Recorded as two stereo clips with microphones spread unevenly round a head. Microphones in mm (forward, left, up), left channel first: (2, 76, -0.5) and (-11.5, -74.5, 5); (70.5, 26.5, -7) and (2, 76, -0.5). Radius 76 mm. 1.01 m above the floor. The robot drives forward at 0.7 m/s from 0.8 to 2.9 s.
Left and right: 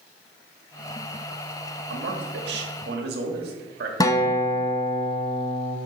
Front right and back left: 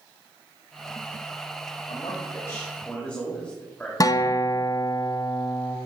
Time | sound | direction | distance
1.9 | a man speaking | 95° right | 1.5 m
4.0 | a guitar | 15° left | 0.7 m